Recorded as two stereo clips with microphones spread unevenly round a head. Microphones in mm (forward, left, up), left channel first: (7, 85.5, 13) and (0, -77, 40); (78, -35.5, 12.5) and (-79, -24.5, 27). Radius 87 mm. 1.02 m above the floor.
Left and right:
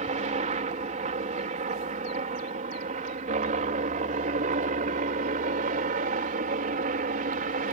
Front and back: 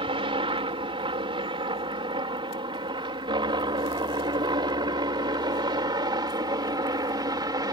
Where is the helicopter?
135° right; by 7.8 s 120° right.